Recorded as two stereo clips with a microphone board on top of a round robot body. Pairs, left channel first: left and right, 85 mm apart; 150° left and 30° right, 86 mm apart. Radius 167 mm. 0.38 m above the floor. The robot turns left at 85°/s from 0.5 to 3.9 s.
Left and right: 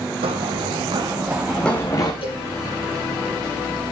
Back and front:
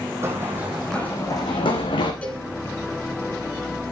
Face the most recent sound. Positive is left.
turn(degrees=-70)